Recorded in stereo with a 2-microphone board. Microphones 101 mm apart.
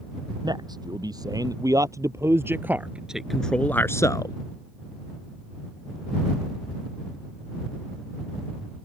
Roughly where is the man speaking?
Right.